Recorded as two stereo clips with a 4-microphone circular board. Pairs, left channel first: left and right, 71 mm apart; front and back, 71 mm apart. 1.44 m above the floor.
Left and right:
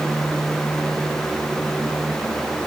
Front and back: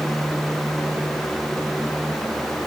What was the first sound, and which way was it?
Only background noise.